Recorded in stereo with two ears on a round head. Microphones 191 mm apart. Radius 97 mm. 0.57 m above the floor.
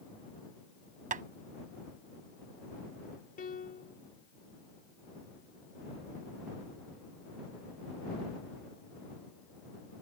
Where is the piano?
40° left (ahead or behind).